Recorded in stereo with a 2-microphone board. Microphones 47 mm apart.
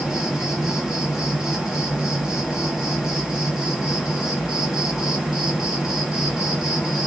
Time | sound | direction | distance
0.0 | an insect | 15° right (ahead or behind) | 1.1 m